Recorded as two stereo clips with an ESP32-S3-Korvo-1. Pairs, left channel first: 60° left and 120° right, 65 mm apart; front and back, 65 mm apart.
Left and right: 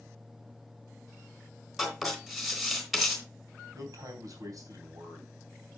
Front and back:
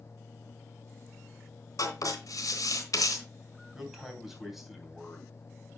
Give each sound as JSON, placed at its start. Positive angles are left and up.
{"t": 1.8, "sound": "writing", "azimuth_deg": -35, "distance_m": 3.5}
{"t": 3.7, "sound": "a man speaking", "azimuth_deg": -95, "distance_m": 3.0}